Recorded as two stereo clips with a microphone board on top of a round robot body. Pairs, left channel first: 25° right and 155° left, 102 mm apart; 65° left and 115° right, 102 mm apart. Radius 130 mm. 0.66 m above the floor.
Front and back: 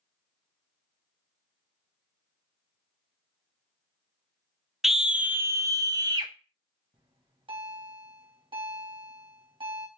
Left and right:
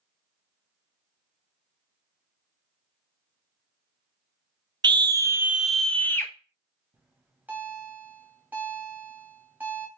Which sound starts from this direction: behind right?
A scream, at 4.8 s.